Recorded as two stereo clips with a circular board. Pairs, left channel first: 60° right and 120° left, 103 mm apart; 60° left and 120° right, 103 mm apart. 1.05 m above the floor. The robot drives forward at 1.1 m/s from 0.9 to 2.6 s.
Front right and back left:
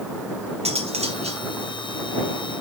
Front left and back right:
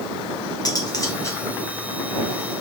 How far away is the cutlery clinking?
About 1.8 m.